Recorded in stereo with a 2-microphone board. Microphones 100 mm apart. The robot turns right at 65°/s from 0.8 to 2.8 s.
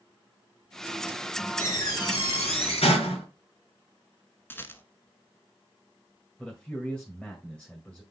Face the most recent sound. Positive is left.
turn(degrees=10)  # may be behind; listen again after turning